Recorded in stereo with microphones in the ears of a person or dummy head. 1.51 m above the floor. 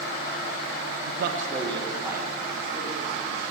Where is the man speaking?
80° right, 0.6 m; by 3.5 s 5° right (ahead or behind), 3.5 m.